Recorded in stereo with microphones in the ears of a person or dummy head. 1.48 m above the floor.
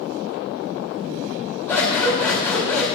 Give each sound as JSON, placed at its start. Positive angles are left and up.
{"t": 1.7, "sound": "scissors", "side_deg": 10, "distance_m": 4.0}